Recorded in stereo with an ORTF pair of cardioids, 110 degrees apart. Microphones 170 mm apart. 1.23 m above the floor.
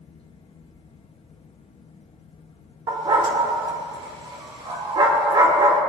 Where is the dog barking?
30° right, 1.9 m.